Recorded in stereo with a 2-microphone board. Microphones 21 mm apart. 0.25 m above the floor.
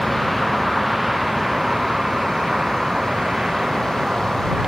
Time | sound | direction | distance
0.0 | a vehicle | centre (ahead or behind) | ?